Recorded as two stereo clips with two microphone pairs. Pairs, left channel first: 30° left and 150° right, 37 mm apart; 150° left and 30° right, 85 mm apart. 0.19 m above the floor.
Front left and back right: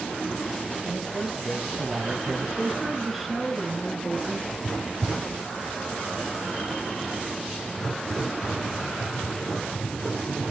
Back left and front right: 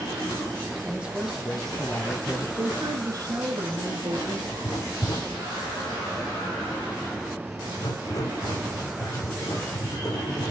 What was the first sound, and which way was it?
A man speaking, 60° right.